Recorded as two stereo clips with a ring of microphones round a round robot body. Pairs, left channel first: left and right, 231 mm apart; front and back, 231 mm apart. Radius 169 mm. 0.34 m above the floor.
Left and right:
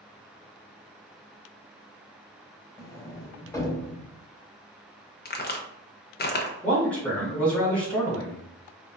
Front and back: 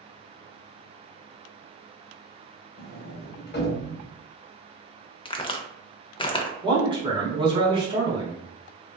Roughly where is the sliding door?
Ahead.